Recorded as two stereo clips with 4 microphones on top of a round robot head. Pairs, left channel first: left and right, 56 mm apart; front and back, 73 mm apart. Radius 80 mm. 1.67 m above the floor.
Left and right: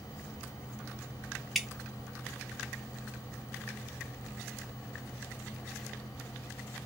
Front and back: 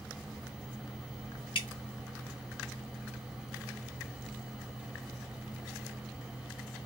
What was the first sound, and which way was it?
Dripping, 5° right.